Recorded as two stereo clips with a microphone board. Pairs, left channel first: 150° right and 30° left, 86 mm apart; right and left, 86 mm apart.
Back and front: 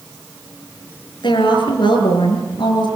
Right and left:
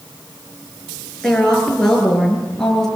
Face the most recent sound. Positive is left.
turn(degrees=-175)